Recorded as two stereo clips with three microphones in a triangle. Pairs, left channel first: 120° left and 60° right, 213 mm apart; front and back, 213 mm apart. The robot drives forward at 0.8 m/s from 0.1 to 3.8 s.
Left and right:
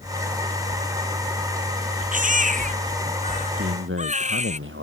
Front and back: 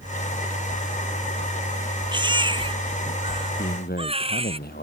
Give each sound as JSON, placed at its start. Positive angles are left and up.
{"t": 2.1, "sound": "a baby crying", "azimuth_deg": -110}
{"t": 3.6, "sound": "a man speaking", "azimuth_deg": -40}